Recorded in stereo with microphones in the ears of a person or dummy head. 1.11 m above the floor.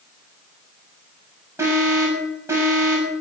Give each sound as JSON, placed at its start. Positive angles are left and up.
{"t": 1.6, "sound": "an alarm", "side_deg": -10, "distance_m": 6.5}